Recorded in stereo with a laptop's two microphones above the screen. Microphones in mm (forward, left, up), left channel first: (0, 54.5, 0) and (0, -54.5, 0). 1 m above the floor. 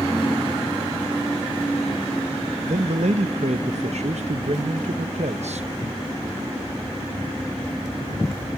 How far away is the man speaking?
About 0.7 m.